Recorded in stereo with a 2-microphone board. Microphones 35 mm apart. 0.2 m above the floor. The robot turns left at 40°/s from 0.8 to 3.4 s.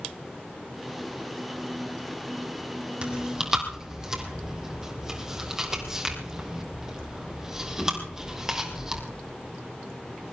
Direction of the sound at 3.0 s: 35° right (ahead or behind).